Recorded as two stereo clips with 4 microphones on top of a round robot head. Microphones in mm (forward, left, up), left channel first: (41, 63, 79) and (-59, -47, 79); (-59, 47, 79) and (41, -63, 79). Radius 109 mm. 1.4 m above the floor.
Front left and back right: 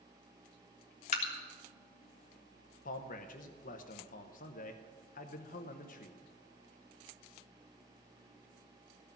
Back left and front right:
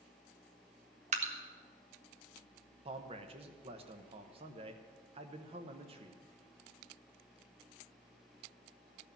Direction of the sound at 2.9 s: 10° left.